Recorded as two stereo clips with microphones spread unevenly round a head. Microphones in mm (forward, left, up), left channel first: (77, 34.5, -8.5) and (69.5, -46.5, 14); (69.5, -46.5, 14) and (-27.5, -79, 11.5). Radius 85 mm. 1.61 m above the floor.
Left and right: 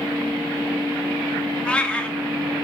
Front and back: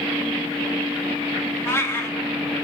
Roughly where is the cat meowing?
Ahead.